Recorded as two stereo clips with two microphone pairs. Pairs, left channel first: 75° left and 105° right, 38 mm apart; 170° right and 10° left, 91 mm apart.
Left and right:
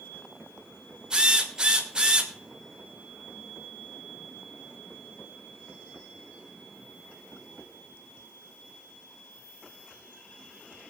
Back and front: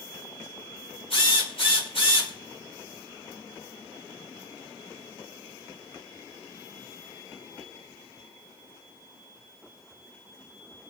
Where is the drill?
175° right, 3 m.